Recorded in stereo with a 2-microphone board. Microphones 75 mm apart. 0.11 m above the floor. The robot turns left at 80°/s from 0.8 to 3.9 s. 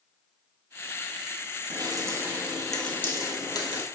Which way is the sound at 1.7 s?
60° right (ahead or behind).